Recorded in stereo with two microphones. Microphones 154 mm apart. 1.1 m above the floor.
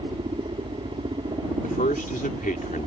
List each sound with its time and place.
0.0 s a helicopter: 35° right (ahead or behind)
1.6 s a man speaking: 65° left (ahead or behind)